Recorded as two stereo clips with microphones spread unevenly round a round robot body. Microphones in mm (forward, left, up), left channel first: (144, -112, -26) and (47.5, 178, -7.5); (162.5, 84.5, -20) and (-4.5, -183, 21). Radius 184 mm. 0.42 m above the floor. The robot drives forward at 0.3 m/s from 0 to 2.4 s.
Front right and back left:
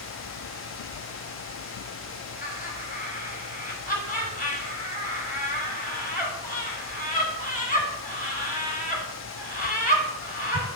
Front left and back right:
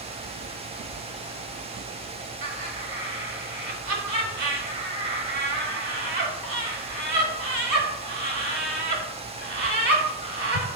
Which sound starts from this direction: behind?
Laughter, at 2.4 s.